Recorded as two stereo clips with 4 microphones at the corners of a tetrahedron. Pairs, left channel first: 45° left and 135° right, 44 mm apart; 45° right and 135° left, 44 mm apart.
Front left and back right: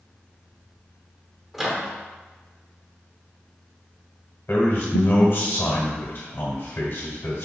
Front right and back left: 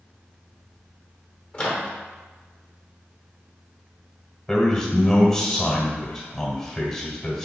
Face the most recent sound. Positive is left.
turn(degrees=40)